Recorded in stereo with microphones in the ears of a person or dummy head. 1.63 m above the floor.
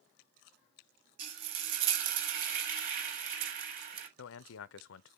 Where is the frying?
50° right (ahead or behind), 1.4 m.